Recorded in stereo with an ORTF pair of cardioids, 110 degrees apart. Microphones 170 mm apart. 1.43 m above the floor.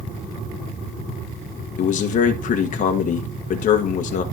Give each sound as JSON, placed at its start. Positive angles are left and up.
{"t": 1.8, "sound": "a man speaking", "azimuth_deg": 55, "distance_m": 1.4}